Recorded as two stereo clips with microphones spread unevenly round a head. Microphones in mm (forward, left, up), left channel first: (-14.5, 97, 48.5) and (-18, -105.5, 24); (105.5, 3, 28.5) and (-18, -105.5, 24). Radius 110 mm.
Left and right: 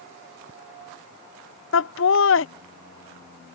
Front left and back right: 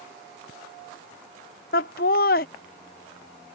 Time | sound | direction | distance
1.7 | laughter | 80° left | ?